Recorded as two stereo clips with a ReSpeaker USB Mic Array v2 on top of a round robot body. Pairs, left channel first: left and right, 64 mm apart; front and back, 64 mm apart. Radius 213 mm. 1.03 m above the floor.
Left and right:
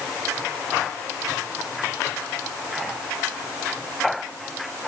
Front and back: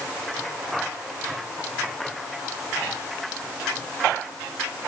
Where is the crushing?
I don't hear crushing.